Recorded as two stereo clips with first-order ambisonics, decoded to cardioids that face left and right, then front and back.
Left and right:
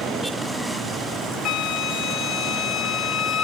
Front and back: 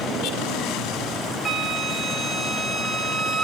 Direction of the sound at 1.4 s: 105° left.